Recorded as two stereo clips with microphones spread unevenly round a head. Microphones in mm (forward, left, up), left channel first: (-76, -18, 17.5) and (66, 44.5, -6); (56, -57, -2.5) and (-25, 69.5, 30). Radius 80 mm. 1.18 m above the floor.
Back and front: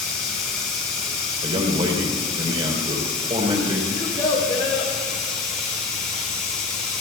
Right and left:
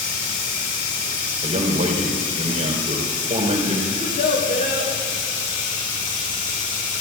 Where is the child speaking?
90° right, 4.5 m.